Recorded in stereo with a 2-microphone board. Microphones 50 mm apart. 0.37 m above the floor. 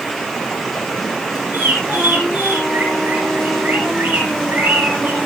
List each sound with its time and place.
1.5 s a bird: 40° right (ahead or behind), 10 m